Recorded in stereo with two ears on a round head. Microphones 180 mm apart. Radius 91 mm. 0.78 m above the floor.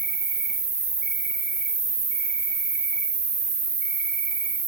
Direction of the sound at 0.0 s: 50° right (ahead or behind).